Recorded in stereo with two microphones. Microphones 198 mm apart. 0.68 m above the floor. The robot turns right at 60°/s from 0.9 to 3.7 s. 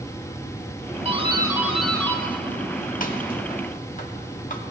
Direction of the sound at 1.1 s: 30° right (ahead or behind).